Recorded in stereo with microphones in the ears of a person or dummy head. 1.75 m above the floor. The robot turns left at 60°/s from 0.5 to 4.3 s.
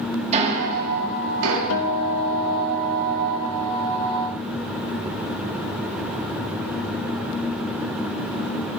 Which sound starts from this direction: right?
Ticking, at 0.3 s.